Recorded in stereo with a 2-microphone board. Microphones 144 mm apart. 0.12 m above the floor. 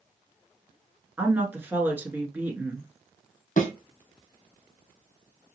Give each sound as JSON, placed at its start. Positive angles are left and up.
{"t": 1.2, "sound": "a woman speaking", "side_deg": -15, "distance_m": 1.2}
{"t": 3.6, "sound": "a thud", "side_deg": 60, "distance_m": 2.0}